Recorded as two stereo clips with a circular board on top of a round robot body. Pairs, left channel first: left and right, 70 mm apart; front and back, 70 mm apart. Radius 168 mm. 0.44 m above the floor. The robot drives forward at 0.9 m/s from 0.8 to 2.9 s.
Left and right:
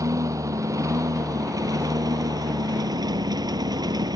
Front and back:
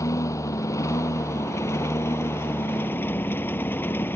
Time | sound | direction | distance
0.0 | a lawn mower | 50° right | ?